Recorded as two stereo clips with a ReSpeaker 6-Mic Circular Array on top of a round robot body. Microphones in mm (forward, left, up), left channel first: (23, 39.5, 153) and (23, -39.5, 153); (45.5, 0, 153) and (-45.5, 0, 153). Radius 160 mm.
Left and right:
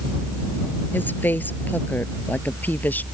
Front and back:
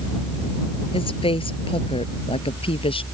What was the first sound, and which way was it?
A woman speaking, 25° left.